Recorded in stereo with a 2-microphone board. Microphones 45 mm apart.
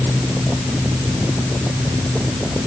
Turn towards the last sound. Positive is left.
No sound to turn to.